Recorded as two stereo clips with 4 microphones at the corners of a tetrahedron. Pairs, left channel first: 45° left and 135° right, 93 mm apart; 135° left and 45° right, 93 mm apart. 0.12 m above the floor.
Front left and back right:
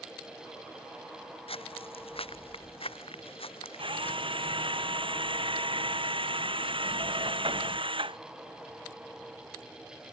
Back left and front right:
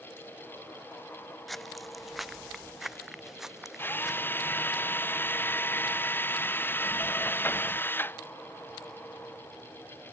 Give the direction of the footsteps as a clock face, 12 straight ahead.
10 o'clock.